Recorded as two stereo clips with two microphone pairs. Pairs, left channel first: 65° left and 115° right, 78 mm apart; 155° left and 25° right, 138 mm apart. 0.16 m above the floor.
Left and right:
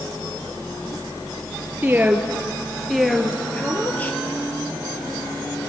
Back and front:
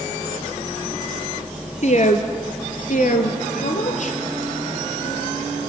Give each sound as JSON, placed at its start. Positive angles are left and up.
{"t": 1.8, "sound": "a woman speaking", "azimuth_deg": 180, "distance_m": 3.5}